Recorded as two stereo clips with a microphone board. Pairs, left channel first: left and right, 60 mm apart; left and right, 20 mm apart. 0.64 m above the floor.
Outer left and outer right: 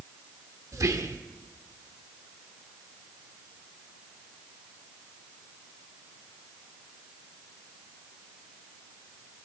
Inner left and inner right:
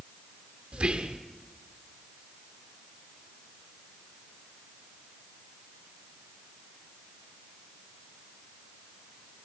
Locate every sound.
0.7 s whispering: 65° right (ahead or behind), 1.3 m